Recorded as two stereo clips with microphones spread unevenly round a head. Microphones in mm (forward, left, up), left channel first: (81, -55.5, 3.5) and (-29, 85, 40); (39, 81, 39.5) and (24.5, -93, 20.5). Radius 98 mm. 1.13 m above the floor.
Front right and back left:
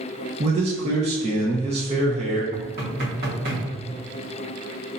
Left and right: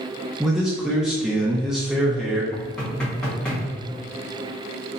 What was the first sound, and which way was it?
A man speaking, 175° right.